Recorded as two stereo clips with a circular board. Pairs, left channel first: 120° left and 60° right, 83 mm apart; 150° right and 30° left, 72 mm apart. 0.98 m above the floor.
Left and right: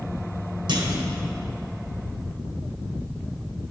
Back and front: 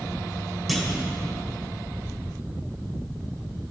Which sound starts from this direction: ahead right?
A clunk, at 0.7 s.